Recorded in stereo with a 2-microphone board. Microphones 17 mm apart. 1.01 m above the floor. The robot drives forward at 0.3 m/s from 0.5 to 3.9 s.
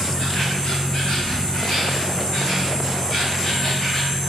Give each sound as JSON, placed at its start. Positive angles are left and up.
{"t": 0.0, "sound": "an insect", "side_deg": 70, "distance_m": 2.5}